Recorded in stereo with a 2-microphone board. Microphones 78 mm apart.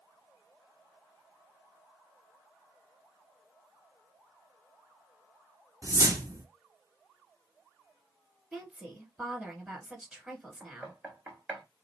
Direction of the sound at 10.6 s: 15° right (ahead or behind).